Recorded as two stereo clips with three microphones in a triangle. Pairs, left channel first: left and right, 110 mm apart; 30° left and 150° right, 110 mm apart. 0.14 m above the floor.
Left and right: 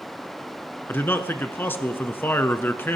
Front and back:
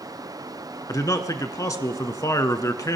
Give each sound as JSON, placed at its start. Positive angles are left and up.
{"t": 0.9, "sound": "a man speaking", "azimuth_deg": 40, "distance_m": 1.2}